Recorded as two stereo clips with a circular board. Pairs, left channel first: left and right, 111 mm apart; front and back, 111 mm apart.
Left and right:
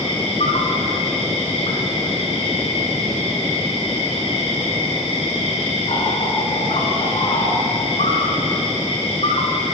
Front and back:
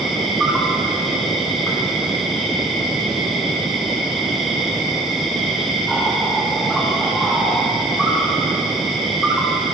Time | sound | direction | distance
0.0 | an insect | 90° left | 5.5 m